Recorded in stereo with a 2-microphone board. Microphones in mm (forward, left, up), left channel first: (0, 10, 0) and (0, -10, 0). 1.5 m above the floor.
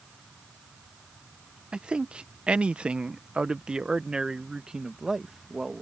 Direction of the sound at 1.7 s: 60° right (ahead or behind).